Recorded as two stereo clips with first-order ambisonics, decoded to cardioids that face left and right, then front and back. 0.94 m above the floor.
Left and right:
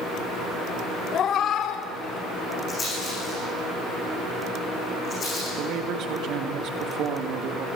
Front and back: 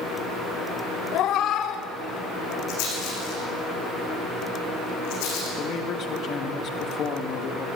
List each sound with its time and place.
1.1 s a cat meowing: 35° left, 0.7 m; by 2.6 s 50° left, 2 m
2.7 s a rattle: 20° left, 9 m
5.6 s a man speaking: 50° right, 1.7 m